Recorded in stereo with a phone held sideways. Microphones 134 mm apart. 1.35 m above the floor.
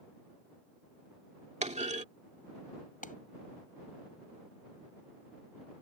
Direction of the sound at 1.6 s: 60° right (ahead or behind).